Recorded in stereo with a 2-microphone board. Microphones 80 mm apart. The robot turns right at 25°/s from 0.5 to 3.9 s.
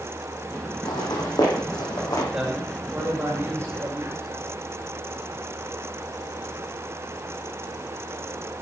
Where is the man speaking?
Straight behind, 5.5 m; by 4.4 s 140° right, 5.5 m.